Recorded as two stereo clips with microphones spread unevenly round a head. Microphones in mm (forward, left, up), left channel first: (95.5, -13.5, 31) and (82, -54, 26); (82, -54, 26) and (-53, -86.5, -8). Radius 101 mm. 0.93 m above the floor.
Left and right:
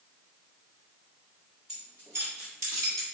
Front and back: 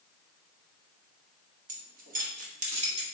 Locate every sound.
1.7 s keys jangling: 165° left, 0.7 m; by 3.0 s 125° right, 1.5 m